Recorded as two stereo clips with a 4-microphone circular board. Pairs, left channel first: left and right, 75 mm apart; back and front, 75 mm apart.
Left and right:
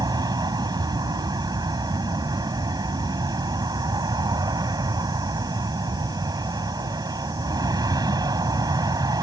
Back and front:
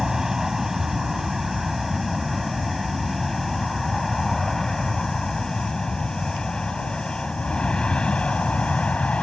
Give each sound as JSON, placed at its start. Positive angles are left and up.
{"t": 0.0, "sound": "an aircraft", "azimuth_deg": -85}